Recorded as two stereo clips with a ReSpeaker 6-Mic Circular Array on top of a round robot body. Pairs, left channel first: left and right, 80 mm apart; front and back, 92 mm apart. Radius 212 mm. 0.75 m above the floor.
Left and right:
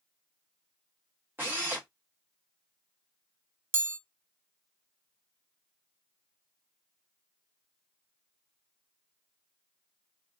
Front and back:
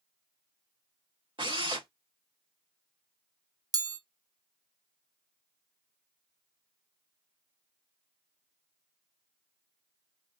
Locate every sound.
1.4 s a drill: 155° right, 2 m
3.7 s a chime: 145° right, 0.7 m